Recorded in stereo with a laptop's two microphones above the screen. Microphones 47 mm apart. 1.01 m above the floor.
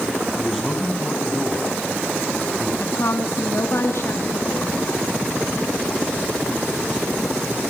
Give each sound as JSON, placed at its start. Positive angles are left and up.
{"t": 0.4, "sound": "a man speaking", "side_deg": 5, "distance_m": 7.5}
{"t": 2.8, "sound": "a woman speaking", "side_deg": 70, "distance_m": 2.5}